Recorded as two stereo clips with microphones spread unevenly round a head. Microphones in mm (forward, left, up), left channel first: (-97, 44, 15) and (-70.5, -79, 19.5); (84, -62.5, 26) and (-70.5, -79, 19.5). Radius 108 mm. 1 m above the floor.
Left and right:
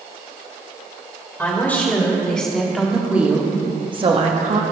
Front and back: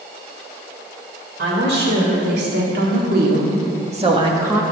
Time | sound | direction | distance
1.4 | a woman speaking | 175° left | 3.5 m